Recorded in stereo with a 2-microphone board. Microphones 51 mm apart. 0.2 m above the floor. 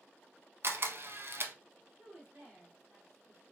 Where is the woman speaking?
30° right (ahead or behind), 1.8 m.